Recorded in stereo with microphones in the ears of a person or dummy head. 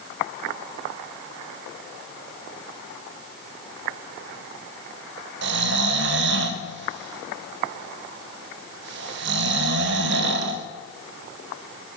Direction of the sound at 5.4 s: 60° right (ahead or behind).